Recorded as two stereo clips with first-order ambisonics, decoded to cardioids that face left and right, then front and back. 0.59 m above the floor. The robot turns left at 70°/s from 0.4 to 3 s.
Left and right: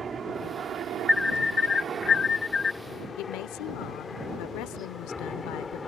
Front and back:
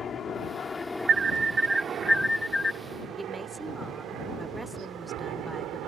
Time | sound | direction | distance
0.0 | a helicopter | 40° right | ?
1.1 | an alarm | 165° left | ?
3.2 | a woman speaking | 100° left | ?